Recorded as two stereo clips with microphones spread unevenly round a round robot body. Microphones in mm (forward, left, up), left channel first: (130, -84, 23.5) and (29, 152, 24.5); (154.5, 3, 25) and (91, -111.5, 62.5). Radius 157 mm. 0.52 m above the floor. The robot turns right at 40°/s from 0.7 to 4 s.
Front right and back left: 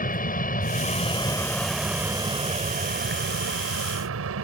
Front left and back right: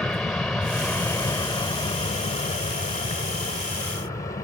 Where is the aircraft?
20° right; by 4.4 s 115° left.